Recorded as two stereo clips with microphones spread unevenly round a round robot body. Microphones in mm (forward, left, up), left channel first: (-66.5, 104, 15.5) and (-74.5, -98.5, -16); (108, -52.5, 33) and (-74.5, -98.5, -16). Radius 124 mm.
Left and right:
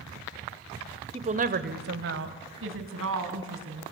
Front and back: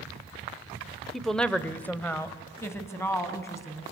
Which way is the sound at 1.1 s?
100° right.